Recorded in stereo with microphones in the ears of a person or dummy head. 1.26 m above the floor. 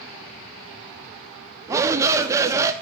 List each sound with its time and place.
1.7 s a shout: 15° right (ahead or behind), 0.6 m